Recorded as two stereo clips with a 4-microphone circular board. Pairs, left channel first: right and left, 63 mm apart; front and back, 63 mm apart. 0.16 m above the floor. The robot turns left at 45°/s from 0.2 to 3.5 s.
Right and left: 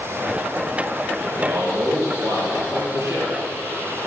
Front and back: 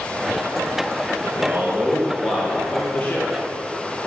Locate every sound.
1.2 s a man speaking: 140° left, 3 m; by 3.3 s 50° left, 3 m